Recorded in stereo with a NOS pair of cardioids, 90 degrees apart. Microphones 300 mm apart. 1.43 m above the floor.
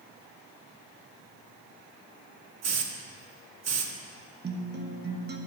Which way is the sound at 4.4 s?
35° right.